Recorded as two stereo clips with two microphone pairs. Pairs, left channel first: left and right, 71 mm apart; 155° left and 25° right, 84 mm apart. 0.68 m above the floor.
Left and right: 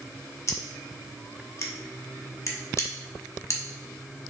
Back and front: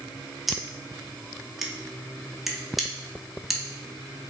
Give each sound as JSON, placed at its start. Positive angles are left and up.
{"t": 0.5, "sound": "scissors", "azimuth_deg": 60, "distance_m": 0.7}